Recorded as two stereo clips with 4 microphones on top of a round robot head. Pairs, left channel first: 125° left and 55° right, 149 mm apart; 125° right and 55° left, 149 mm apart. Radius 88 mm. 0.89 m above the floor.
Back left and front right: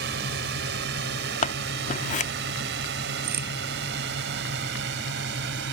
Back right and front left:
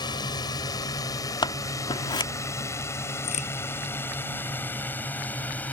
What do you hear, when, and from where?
0.0 s a drone: 60° right; by 5.7 s 45° right
1.4 s scissors: 170° left
3.2 s a crack: 75° right